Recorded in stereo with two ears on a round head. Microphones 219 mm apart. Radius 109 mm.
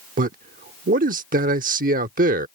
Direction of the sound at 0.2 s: 35° right (ahead or behind).